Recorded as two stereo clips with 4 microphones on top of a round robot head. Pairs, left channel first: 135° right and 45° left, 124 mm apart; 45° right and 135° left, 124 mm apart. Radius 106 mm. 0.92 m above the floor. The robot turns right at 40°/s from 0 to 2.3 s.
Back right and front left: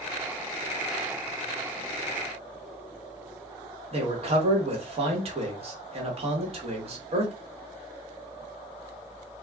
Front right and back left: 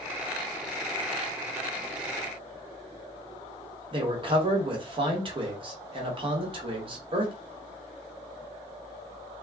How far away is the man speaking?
About 1.1 m.